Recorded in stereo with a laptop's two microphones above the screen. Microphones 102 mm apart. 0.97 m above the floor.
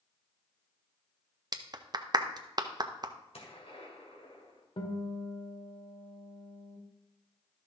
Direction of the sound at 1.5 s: 40° right (ahead or behind).